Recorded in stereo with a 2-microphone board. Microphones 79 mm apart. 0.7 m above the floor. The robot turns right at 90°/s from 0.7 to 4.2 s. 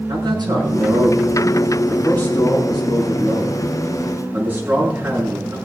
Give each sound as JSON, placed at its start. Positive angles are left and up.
{"t": 0.1, "sound": "a man speaking", "side_deg": -65, "distance_m": 6.5}